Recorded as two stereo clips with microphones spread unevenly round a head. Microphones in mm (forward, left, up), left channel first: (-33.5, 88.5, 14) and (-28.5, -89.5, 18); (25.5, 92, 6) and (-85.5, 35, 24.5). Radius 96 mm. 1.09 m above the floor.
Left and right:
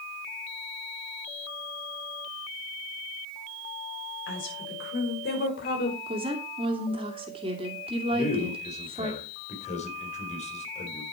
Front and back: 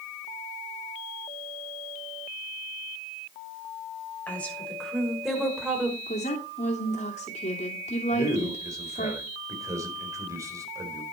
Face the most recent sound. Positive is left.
turn(degrees=145)